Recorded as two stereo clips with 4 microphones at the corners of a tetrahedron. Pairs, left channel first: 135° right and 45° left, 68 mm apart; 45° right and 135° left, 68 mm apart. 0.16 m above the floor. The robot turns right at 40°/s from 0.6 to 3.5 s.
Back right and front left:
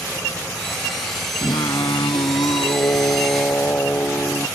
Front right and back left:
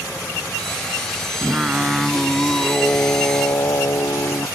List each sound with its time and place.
1.4 s singing: 160° right; by 4.5 s 80° right